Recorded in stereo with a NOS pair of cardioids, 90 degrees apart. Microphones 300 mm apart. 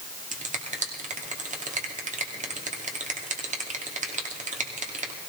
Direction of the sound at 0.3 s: 25° right.